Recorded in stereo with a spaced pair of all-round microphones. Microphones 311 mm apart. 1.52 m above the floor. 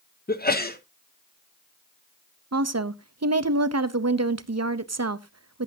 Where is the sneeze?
30° left (ahead or behind), 0.9 m.